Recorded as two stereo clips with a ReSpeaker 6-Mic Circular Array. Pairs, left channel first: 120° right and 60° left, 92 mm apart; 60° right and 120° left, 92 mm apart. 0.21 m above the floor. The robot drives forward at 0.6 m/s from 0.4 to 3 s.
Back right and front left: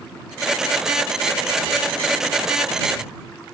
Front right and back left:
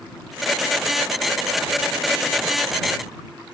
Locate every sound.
Only background noise.